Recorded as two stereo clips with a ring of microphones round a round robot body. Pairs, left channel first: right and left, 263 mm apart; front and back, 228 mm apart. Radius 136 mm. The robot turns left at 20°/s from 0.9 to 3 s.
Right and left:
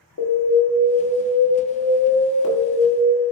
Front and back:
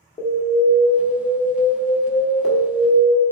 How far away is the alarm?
About 1.6 m.